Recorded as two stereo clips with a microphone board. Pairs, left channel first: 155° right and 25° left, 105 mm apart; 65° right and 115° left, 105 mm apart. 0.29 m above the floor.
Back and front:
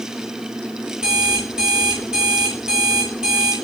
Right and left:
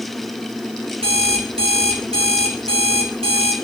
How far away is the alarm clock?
About 2.0 m.